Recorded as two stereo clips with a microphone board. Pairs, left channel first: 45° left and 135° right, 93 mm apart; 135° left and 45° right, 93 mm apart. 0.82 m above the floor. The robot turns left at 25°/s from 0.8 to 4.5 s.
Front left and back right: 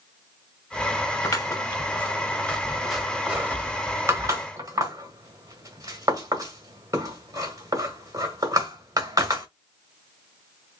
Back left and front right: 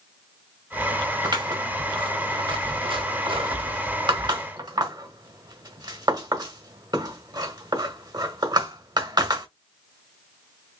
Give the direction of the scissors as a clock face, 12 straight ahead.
12 o'clock.